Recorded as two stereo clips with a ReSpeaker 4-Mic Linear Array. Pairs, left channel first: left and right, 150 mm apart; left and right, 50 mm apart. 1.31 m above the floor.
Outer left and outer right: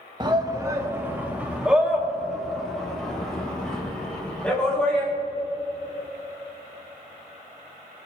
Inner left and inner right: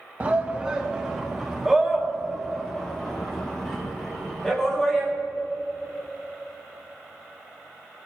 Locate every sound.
0.2 s a shout: 30° right (ahead or behind), 1.2 m; by 5.1 s 10° left (ahead or behind), 4 m